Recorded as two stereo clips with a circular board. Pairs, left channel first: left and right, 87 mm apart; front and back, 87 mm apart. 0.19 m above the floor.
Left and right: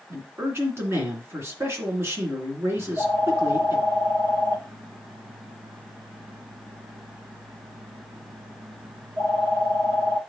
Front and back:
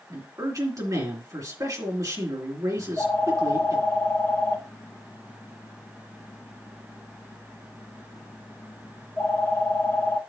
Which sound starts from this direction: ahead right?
A phone ringing, at 2.8 s.